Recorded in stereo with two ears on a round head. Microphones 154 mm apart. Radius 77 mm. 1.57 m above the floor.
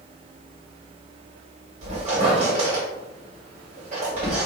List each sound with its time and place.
1.8 s a squeak: 40° right (ahead or behind), 1.7 m